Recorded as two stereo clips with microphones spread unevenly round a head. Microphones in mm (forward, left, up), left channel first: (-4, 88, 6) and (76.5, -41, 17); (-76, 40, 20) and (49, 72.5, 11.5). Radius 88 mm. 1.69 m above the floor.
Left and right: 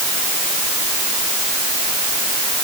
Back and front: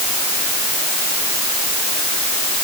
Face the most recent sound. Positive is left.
No sound to turn to.